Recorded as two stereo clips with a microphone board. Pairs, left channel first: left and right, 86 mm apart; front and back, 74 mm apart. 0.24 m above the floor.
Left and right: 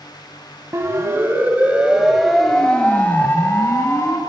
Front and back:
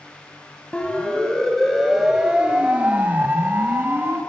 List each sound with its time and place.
0.7 s a siren: 65° right, 2.5 m; by 4.2 s 130° left, 3 m